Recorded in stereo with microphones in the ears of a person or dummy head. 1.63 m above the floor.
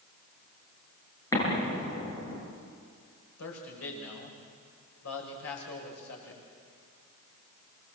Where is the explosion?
20° left (ahead or behind), 7.5 m.